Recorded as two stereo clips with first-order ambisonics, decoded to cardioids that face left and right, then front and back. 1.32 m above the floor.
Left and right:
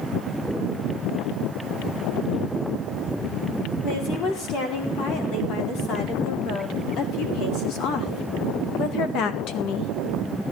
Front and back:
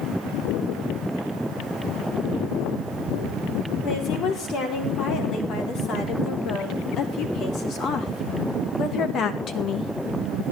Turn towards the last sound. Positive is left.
turn(degrees=55)